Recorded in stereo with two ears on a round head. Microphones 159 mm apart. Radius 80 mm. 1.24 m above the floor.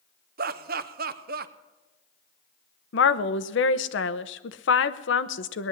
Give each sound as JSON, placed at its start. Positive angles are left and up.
{"t": 0.4, "sound": "laughter", "side_deg": -50, "distance_m": 0.9}
{"t": 2.9, "sound": "a woman speaking", "side_deg": 70, "distance_m": 0.8}